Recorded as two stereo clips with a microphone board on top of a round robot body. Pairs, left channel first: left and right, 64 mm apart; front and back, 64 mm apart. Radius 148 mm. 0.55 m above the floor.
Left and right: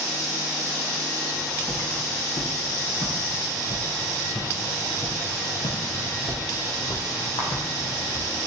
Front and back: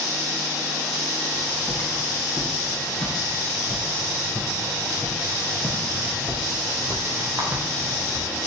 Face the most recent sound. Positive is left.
turn(degrees=130)